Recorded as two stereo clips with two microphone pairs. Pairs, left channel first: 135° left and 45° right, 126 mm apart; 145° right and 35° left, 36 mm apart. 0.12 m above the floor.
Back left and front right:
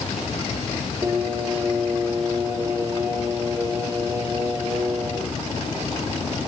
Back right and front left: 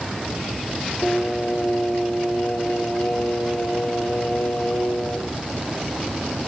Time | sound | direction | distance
1.0 | singing | 115° right | 3 m